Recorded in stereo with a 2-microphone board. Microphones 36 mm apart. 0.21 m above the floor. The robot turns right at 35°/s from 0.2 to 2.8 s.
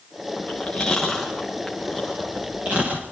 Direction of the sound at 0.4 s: 40° left (ahead or behind).